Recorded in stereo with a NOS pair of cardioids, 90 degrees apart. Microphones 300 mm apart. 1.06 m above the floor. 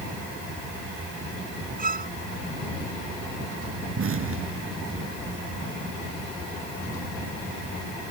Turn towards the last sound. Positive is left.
turn(degrees=-45)